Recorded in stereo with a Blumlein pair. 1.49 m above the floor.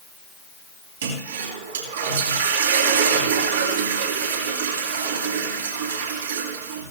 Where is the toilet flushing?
65° right, 3 m.